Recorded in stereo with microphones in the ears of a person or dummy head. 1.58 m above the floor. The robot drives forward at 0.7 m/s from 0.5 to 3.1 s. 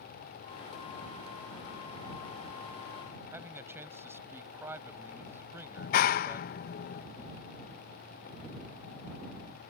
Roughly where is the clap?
Left.